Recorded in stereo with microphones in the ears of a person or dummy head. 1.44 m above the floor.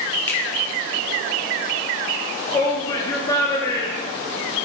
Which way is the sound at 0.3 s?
10° left (ahead or behind).